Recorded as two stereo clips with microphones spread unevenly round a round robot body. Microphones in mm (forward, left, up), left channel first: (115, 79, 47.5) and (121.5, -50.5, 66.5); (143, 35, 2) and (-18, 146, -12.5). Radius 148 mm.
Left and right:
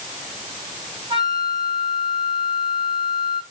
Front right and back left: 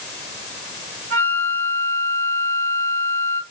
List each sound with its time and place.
1.1 s a flute: 155° right, 2.5 m